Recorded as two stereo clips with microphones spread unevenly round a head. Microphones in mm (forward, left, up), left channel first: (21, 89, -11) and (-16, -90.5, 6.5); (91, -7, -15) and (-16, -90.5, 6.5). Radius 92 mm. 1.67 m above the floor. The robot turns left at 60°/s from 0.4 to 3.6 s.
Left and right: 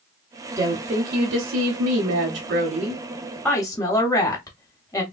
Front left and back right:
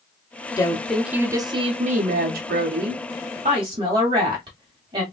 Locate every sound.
0.6 s a woman speaking: 25° right, 0.8 m; by 5.0 s 150° left, 0.8 m